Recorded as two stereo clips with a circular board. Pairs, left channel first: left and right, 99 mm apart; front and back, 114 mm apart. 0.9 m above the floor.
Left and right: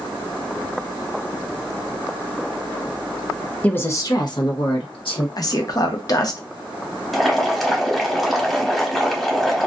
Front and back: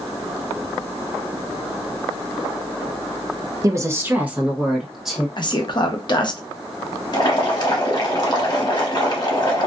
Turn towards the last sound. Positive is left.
turn(degrees=0)